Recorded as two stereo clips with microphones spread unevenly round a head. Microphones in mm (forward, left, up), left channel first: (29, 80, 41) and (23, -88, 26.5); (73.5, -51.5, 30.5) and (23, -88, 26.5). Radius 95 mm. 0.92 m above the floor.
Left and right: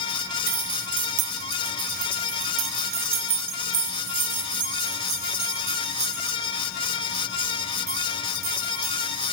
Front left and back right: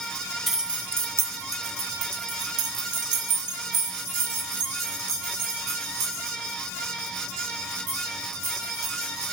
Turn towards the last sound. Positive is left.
turn(degrees=-170)